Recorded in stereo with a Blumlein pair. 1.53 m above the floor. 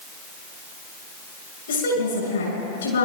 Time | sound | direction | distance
1.7 | a woman speaking | 65° left | 7 m